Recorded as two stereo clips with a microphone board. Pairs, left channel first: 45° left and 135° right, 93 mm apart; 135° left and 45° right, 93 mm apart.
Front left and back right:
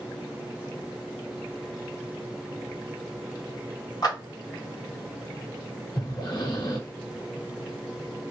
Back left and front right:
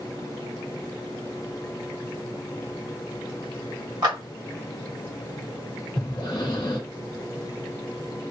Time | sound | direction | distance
4.0 | a clap | straight ahead | 1.6 m
6.0 | breathing | 90° left | 1.1 m